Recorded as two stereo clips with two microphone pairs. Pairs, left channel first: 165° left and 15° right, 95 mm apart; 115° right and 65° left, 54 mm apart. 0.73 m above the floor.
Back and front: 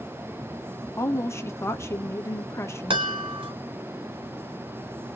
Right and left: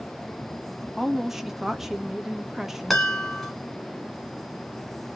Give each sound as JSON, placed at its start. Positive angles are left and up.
{"t": 1.0, "sound": "a woman speaking", "azimuth_deg": 145, "distance_m": 0.8}
{"t": 2.9, "sound": "a chime", "azimuth_deg": -25, "distance_m": 1.5}